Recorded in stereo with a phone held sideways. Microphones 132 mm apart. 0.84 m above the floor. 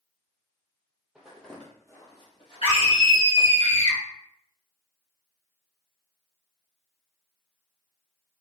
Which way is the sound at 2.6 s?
45° left (ahead or behind).